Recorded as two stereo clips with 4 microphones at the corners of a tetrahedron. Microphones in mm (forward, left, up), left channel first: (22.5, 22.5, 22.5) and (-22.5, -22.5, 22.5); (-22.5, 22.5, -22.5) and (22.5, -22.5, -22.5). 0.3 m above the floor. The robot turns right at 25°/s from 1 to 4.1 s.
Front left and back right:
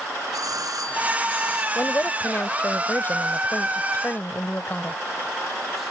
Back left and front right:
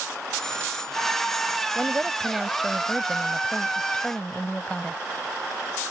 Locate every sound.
0.3 s a doorbell: 145° right; by 1.6 s 130° right
1.8 s a woman speaking: 15° left; by 5.0 s 75° left